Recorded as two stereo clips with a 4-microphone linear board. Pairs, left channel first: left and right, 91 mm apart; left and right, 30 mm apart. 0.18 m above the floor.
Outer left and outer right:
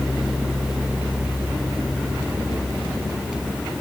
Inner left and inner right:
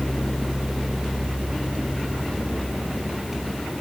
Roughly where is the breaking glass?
No breaking glass in this recording.